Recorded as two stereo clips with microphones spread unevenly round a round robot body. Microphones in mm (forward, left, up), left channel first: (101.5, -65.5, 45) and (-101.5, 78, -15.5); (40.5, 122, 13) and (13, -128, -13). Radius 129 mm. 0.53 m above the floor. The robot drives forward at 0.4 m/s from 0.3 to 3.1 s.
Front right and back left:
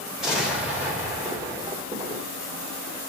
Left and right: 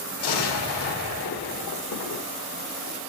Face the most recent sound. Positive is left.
turn(degrees=100)